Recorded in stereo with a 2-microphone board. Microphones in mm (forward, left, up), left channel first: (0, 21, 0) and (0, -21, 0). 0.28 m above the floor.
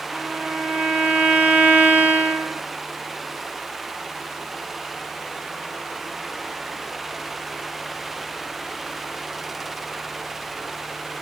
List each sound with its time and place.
0.1 s a violin: 30° right (ahead or behind), 0.6 m